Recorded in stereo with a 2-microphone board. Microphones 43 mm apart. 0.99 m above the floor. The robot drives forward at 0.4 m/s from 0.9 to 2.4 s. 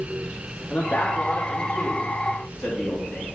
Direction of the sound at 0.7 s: 45° left (ahead or behind).